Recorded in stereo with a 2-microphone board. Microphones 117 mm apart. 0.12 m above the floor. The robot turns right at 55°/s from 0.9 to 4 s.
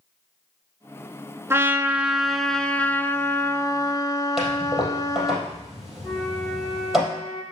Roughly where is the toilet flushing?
Centre.